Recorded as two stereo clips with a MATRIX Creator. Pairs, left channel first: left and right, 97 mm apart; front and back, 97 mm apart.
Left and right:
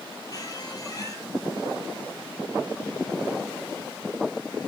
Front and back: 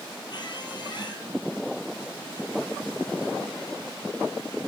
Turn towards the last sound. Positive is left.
turn(degrees=40)